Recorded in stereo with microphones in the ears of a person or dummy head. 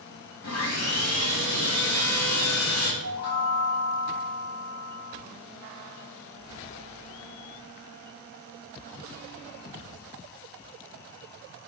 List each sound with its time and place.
0.4 s sawing: 70° left (ahead or behind), 0.7 m
3.0 s a chime: 10° right (ahead or behind), 1.0 m